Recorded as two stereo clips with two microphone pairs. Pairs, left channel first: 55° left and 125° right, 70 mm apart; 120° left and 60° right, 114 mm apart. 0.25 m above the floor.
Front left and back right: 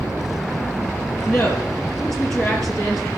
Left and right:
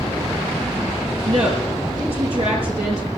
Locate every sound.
1.2 s a woman speaking: 30° right, 6 m